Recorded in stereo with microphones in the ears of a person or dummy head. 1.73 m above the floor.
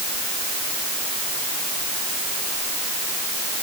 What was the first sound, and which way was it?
Only background noise.